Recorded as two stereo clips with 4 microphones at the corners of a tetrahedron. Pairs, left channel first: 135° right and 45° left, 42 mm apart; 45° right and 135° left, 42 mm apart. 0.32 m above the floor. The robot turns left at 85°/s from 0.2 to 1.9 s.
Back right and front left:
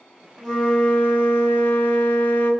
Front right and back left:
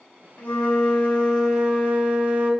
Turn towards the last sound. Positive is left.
turn(degrees=180)